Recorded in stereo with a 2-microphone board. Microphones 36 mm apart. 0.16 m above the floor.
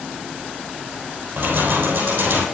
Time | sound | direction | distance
1.4 | keys jangling | 75° right (ahead or behind) | 2.5 m